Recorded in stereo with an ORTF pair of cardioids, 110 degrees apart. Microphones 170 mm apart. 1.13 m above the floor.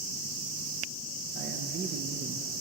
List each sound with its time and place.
1.4 s a man speaking: 55° right, 0.8 m